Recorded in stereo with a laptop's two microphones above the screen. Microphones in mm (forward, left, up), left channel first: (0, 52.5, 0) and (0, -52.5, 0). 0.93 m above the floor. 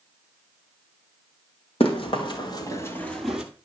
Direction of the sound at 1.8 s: 60° left (ahead or behind).